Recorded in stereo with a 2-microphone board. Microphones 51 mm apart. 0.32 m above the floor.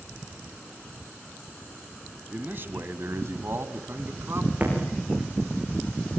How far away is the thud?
About 7 m.